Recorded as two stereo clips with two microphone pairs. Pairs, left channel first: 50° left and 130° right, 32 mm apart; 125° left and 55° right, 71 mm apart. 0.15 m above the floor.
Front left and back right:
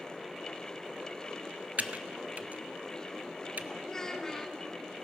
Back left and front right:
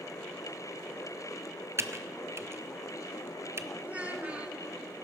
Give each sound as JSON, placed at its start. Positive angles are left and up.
{"t": 1.8, "sound": "typing on a keyboard", "azimuth_deg": -100, "distance_m": 0.5}
{"t": 3.8, "sound": "a child speaking", "azimuth_deg": -5, "distance_m": 1.0}